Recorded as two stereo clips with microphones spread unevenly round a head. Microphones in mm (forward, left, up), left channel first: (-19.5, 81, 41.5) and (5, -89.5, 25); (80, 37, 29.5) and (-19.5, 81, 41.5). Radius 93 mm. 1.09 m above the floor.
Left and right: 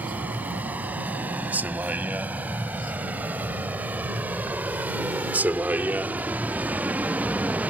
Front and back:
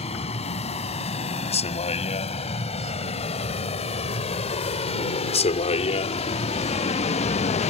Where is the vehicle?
Straight ahead.